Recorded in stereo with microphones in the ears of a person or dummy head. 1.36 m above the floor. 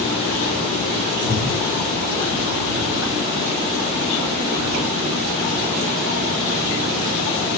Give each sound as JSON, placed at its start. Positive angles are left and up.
{"t": 1.2, "sound": "breathing", "side_deg": 85, "distance_m": 4.0}